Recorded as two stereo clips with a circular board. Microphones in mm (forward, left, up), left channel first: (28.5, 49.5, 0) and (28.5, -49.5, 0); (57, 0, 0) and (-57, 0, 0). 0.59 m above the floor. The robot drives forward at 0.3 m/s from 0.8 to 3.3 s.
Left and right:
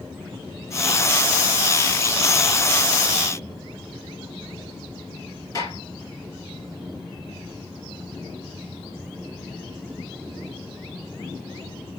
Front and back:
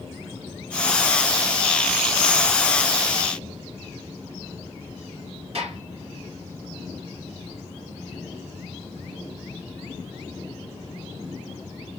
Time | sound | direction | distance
5.5 | a gunshot | 145° left | 3.5 m